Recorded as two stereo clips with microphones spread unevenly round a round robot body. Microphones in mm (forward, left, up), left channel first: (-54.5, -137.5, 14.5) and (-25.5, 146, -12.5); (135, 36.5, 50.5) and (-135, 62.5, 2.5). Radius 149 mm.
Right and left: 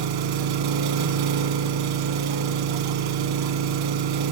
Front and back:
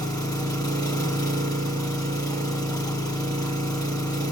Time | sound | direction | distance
0.0 | an engine running | 70° left | 1.2 m